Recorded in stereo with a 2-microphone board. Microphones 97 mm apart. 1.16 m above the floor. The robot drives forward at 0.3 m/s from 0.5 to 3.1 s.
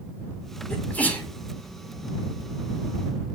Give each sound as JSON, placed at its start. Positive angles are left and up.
{"t": 0.7, "sound": "a sneeze", "side_deg": 15, "distance_m": 4.5}